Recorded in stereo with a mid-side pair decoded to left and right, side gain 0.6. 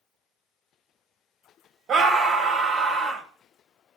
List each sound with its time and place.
1.9 s a scream: 40° right, 2.5 m